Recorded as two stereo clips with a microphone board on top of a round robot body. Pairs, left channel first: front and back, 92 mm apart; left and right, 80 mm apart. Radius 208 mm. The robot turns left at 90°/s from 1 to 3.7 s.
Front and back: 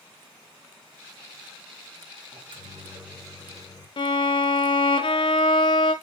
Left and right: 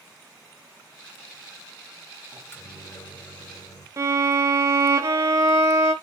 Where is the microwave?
170° left, 3.5 m; by 3.9 s 45° left, 3.5 m.